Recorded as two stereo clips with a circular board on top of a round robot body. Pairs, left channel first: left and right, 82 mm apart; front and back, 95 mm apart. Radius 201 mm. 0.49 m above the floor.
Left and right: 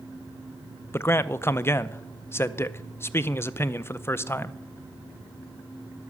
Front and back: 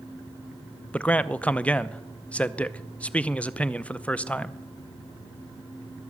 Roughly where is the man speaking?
Ahead left.